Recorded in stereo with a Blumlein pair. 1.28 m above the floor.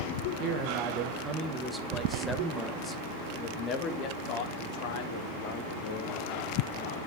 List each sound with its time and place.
0.4 s a man speaking: 40° right, 1.9 m; by 7.0 s 55° left, 4.5 m